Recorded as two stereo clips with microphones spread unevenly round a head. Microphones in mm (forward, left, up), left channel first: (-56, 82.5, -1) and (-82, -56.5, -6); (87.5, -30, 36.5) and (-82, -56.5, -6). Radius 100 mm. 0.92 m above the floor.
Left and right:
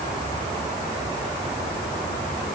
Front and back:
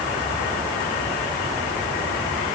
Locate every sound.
Only background noise.